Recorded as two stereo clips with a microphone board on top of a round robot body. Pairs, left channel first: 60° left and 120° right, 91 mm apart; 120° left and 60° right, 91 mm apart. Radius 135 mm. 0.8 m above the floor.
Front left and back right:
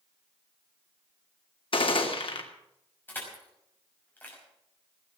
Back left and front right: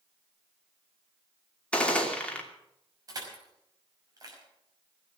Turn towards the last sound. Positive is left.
turn(degrees=-10)